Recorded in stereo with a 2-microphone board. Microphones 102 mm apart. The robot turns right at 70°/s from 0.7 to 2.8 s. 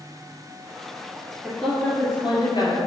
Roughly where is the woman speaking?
Ahead.